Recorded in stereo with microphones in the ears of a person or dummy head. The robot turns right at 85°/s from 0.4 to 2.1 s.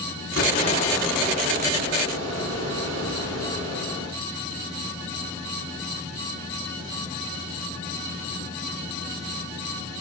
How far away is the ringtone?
No ringtone in this recording.